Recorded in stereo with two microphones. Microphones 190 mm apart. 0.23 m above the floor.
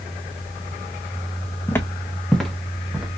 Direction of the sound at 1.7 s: 15° left (ahead or behind).